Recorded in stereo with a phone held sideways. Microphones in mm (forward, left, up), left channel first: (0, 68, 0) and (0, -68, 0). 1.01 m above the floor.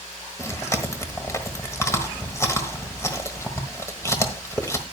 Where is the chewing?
20° left (ahead or behind), 1.3 m.